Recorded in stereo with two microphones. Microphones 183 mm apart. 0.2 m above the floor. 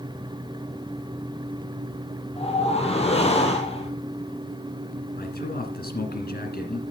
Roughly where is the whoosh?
Left.